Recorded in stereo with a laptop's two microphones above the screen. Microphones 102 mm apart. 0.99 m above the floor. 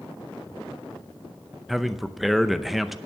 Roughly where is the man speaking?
Centre.